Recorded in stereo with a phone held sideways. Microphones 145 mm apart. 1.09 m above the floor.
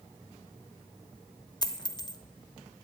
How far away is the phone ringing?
No phone ringing in this recording.